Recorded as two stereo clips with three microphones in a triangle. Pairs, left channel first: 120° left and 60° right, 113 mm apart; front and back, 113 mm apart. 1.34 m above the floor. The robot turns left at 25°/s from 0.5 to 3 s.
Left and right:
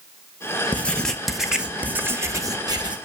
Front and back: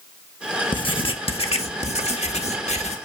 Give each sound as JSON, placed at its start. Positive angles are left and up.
{"t": 0.7, "sound": "writing", "azimuth_deg": 45, "distance_m": 1.3}